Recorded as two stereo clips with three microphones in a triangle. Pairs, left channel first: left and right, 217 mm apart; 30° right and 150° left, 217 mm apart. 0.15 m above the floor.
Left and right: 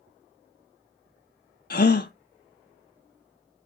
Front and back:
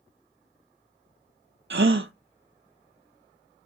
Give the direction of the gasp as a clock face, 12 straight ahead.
8 o'clock.